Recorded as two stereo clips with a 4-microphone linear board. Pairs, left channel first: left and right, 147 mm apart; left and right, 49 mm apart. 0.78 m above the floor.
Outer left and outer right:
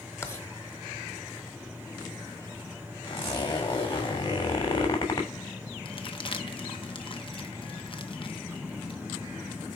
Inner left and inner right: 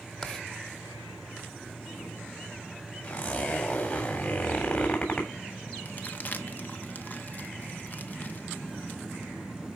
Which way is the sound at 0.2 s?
20° left (ahead or behind).